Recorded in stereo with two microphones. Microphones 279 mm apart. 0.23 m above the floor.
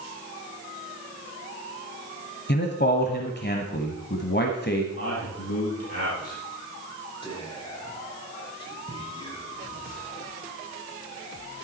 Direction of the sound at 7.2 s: 20° left (ahead or behind).